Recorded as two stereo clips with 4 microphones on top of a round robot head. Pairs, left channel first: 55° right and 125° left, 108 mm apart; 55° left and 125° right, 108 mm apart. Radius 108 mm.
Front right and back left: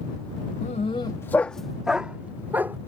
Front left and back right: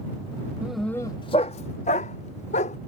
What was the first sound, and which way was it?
A dog barking, 50° right.